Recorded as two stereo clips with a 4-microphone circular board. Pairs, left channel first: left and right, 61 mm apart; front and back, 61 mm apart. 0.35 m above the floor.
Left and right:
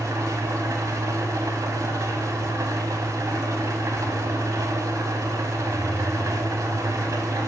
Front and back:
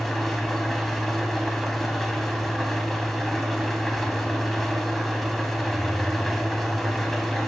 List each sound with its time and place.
0.0 s an engine running: 90° right, 0.8 m